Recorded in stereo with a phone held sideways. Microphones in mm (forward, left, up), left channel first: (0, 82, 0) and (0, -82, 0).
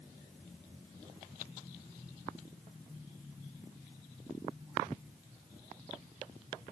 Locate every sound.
Only background noise.